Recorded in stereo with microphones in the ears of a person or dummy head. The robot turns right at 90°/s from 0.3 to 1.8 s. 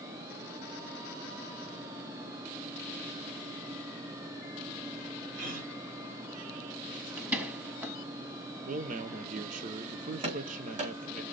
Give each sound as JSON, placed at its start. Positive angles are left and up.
{"t": 5.3, "sound": "a gasp", "side_deg": -45, "distance_m": 4.0}
{"t": 7.2, "sound": "a door slam", "side_deg": -5, "distance_m": 1.7}
{"t": 8.7, "sound": "a man speaking", "side_deg": -40, "distance_m": 0.7}
{"t": 10.2, "sound": "running footsteps", "side_deg": -35, "distance_m": 4.5}